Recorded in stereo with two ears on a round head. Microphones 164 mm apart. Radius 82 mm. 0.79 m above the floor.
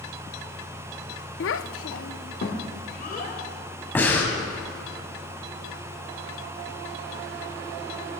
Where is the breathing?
10° left (ahead or behind), 2 m.